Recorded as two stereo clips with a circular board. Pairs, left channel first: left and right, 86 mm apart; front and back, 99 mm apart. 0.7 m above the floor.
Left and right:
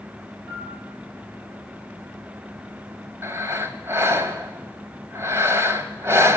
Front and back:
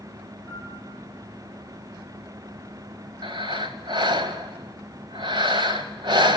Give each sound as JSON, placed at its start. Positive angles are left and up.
{"t": 0.5, "sound": "a piano", "azimuth_deg": -120, "distance_m": 9.0}
{"t": 3.2, "sound": "breathing", "azimuth_deg": -145, "distance_m": 1.4}